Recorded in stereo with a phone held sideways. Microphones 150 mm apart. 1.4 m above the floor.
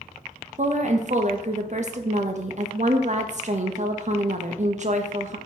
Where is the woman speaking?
50° right (ahead or behind), 0.5 m.